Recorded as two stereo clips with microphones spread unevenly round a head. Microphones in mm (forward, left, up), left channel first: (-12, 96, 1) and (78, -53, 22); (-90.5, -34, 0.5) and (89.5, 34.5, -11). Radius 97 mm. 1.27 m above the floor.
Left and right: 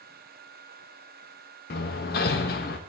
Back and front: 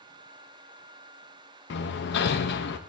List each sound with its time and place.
1.7 s hammering: 170° left, 0.9 m